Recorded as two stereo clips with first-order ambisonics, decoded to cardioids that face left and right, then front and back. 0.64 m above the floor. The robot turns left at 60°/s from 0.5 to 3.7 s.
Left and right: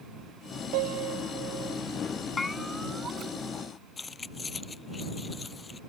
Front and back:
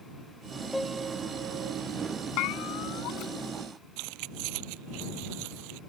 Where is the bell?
15° left; by 3.4 s 40° right.